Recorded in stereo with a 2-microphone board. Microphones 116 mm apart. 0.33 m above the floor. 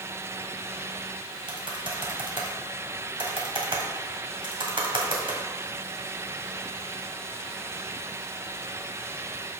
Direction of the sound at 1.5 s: 50° right (ahead or behind).